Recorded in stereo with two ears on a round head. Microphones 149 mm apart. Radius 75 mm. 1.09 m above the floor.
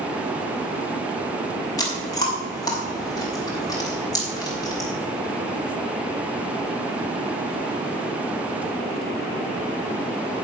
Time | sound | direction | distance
1.8 | chewing | 25° left (ahead or behind) | 4 m